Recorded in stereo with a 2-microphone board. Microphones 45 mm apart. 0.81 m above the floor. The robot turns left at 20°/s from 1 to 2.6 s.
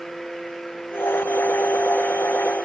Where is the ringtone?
No ringtone in this recording.